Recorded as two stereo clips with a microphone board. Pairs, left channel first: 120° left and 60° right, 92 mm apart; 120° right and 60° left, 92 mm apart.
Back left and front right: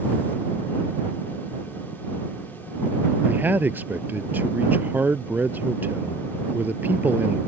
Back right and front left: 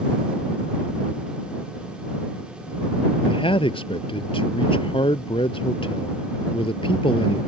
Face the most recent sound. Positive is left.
turn(degrees=-130)